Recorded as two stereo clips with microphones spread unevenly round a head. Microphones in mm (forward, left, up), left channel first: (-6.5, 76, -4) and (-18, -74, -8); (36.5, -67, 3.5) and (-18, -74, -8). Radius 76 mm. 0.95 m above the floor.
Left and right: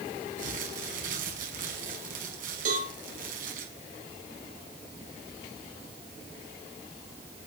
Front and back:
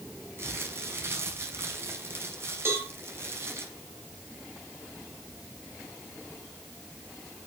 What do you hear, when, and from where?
0.4 s crumpling: 130° right, 5.5 m
2.6 s a cowbell: 130° right, 7 m